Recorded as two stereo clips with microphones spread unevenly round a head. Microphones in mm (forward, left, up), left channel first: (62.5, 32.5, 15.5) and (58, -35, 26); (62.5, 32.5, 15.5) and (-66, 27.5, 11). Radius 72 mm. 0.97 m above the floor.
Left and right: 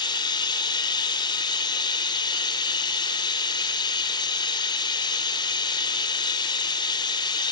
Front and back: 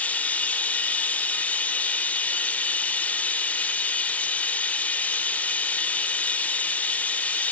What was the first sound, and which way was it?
Running water, 80° left.